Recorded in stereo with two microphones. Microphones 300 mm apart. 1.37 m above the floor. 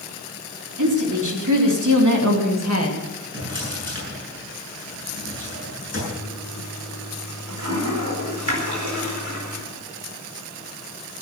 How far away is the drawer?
About 7 m.